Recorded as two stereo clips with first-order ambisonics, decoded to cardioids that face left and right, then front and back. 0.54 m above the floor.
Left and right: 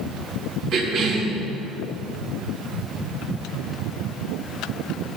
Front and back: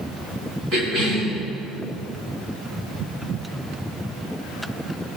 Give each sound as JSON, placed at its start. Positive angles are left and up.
{"t": 0.7, "sound": "a cough", "azimuth_deg": -135, "distance_m": 4.5}